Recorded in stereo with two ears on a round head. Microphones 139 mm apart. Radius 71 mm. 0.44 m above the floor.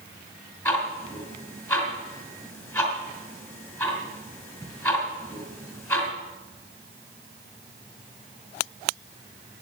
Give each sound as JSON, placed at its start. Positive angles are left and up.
{"t": 0.7, "sound": "ticking", "side_deg": 15, "distance_m": 2.5}